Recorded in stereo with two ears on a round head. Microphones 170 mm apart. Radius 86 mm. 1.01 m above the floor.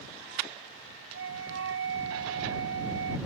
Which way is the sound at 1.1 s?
70° right (ahead or behind).